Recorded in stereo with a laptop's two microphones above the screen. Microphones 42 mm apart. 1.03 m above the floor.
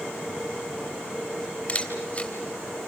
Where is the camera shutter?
30° left (ahead or behind), 3 m.